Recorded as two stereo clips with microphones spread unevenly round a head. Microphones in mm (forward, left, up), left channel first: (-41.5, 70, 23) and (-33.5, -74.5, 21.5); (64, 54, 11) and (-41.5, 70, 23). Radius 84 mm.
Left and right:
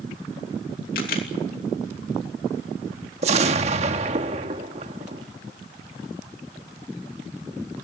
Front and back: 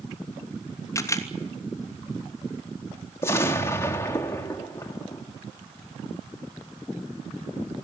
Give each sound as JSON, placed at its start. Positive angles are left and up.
{"t": 0.9, "sound": "a camera shutter", "azimuth_deg": 50, "distance_m": 3.0}
{"t": 3.2, "sound": "an explosion", "azimuth_deg": -80, "distance_m": 1.2}